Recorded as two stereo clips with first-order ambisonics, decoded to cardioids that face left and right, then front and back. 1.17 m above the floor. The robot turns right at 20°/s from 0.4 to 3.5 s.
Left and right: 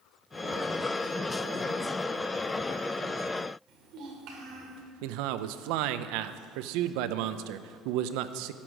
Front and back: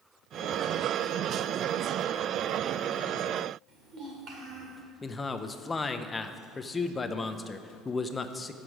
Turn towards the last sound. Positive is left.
turn(degrees=-75)